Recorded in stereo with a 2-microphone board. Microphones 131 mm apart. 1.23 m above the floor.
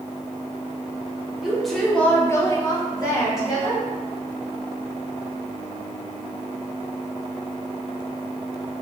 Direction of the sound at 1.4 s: 5° right (ahead or behind).